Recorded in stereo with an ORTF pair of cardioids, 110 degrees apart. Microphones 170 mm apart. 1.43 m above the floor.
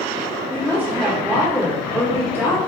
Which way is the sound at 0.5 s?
10° right.